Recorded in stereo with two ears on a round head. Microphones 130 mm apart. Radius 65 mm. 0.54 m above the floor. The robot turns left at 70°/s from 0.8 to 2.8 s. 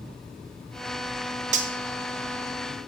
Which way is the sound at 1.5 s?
50° right (ahead or behind).